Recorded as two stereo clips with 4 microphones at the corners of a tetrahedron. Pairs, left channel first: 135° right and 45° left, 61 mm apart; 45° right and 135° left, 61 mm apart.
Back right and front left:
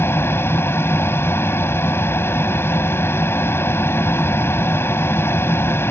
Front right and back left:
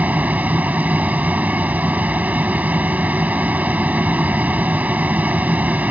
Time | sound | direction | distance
0.0 | an aircraft | 170° right | ?